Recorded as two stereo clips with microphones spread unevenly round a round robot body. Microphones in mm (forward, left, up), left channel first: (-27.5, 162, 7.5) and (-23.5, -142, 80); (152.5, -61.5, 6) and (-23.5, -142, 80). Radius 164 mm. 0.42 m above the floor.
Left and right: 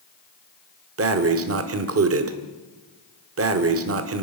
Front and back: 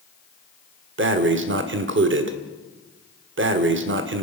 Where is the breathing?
135° right, 1.7 m.